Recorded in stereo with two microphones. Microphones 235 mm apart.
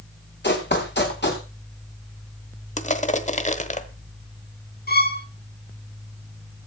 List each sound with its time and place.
0.4 s running footsteps: 50° left (ahead or behind), 4 m
2.8 s crushing: 30° left (ahead or behind), 1.2 m
4.9 s a violin: 40° left (ahead or behind), 1.8 m